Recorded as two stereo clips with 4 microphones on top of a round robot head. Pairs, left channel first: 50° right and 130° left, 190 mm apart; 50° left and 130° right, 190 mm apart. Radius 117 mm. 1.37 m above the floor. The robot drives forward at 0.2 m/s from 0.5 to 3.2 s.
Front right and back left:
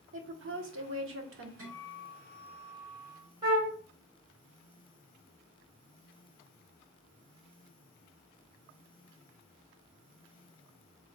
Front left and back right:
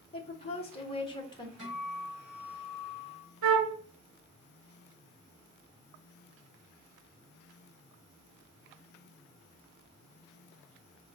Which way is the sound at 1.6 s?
140° left.